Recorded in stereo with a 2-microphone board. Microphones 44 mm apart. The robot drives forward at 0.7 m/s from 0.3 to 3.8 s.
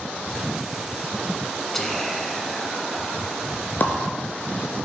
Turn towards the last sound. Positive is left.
turn(degrees=55)  # may be behind; listen again after turning